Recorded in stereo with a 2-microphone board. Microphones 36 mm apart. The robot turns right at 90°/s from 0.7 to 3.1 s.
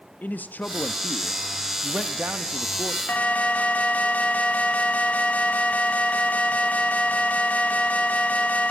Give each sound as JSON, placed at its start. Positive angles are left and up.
{"t": 0.2, "sound": "a man speaking", "azimuth_deg": 105, "distance_m": 0.7}
{"t": 3.1, "sound": "an alarm", "side_deg": 45, "distance_m": 1.2}